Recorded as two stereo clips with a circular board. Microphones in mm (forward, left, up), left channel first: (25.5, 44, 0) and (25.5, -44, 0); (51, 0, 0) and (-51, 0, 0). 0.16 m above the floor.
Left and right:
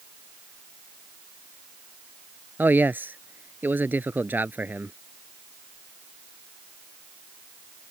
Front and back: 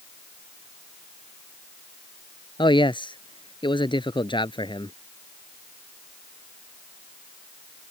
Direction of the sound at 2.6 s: 25° right.